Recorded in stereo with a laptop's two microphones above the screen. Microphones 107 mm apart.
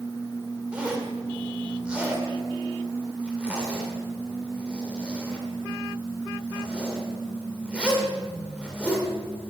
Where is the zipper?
10° right (ahead or behind), 2 m.